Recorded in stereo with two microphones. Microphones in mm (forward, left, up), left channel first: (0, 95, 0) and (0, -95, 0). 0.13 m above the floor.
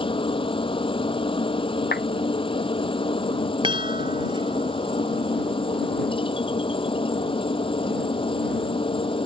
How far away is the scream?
No scream in this recording.